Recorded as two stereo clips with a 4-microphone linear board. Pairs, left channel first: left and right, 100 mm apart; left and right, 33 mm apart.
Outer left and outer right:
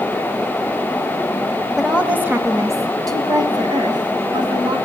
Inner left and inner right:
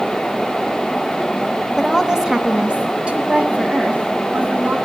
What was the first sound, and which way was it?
A woman speaking, 5° right (ahead or behind).